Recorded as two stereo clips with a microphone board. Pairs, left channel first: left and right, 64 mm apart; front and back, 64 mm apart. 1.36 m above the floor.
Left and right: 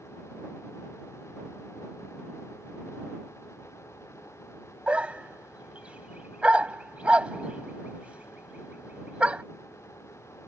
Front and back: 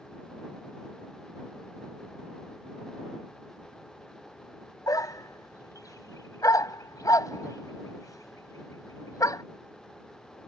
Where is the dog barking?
20° right.